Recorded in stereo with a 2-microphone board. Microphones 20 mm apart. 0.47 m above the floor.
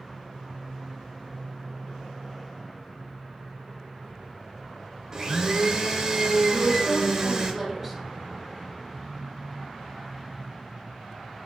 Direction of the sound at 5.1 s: 35° right (ahead or behind).